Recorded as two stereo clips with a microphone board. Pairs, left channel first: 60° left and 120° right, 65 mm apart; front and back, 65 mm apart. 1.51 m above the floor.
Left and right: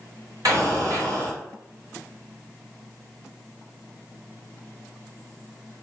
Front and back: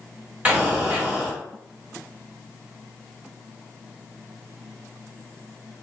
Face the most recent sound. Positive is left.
turn(degrees=-110)